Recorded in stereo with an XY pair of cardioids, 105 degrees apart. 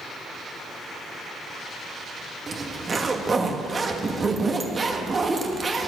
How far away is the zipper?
About 1.5 m.